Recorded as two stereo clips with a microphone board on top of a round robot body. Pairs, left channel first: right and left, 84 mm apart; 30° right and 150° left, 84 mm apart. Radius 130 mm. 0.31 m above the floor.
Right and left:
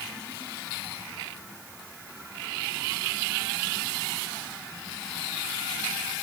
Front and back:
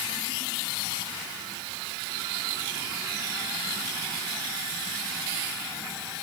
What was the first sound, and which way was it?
Only background noise.